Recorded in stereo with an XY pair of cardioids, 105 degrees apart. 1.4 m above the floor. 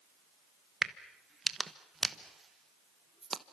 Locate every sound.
0.8 s a crack: 30° right, 1.1 m